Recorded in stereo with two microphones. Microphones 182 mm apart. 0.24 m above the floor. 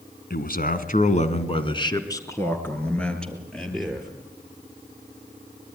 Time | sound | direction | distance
0.3 | a man speaking | 60° left (ahead or behind) | 2 m